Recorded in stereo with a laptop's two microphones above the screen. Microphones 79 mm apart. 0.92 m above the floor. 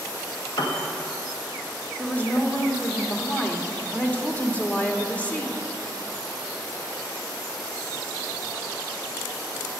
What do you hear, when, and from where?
0.6 s a piano: 65° left (ahead or behind), 1.4 m
2.0 s a woman speaking: 20° left (ahead or behind), 1.5 m